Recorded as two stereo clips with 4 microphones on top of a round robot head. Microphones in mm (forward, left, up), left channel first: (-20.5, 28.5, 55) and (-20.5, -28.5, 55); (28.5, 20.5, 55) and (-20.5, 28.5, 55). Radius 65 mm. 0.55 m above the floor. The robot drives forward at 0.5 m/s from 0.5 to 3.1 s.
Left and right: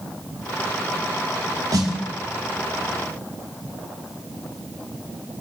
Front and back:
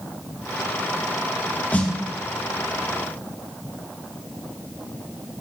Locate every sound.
1.7 s a snare drum: 70° right, 2.5 m; by 1.9 s 75° right, 2.5 m